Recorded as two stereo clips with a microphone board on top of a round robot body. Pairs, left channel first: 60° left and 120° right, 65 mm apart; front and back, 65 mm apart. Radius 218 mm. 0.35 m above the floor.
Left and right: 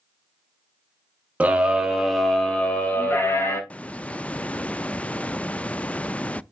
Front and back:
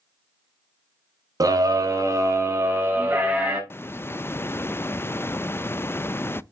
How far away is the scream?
About 2.5 m.